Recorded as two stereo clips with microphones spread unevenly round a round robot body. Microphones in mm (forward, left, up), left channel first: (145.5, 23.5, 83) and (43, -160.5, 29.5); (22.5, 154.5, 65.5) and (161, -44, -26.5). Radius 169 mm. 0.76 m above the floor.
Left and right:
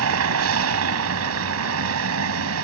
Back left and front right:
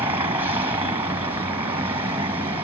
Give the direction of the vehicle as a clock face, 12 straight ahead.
5 o'clock.